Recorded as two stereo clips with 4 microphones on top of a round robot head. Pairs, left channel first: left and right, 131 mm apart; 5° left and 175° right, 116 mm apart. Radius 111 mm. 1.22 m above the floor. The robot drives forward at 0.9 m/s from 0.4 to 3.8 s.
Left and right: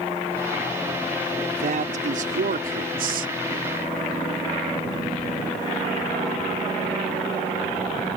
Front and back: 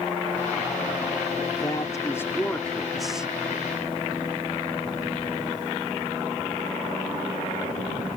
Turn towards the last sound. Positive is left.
turn(degrees=-100)